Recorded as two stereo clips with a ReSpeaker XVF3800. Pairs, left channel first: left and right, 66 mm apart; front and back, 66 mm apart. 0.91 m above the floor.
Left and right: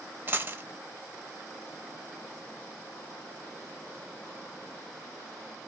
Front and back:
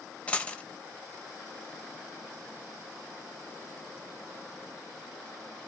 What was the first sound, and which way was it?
A dropped coin, 60° right.